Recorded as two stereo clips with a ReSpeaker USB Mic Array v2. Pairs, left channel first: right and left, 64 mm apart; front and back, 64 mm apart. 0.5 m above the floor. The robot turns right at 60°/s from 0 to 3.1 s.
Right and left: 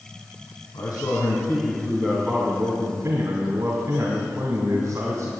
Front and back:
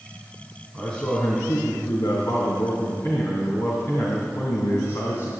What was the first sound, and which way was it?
A man speaking, 95° right.